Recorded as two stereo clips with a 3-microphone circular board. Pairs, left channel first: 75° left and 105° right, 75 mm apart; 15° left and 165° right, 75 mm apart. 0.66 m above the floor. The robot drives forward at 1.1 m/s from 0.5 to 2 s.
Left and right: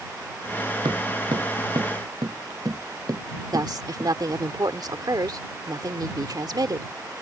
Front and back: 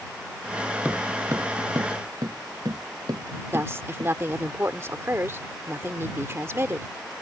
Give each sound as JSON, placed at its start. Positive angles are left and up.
{"t": 0.8, "sound": "footsteps", "azimuth_deg": -95}
{"t": 3.5, "sound": "a woman speaking", "azimuth_deg": -115}